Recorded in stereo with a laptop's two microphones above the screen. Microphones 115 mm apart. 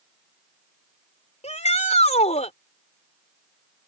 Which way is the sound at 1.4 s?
70° left (ahead or behind).